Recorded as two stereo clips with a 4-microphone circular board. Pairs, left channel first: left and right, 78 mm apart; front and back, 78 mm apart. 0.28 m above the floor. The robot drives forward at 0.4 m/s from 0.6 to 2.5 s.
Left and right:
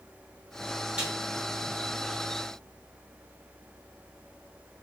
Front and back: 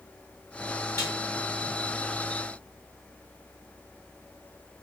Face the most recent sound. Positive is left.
turn(degrees=-85)